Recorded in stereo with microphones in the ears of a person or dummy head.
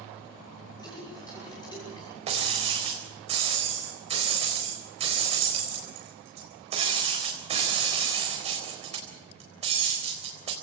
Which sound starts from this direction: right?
Breaking glass, at 2.3 s.